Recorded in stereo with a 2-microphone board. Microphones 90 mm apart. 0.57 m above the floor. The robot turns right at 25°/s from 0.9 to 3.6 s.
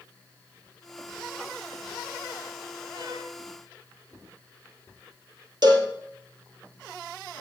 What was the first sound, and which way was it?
A violin, 50° right (ahead or behind).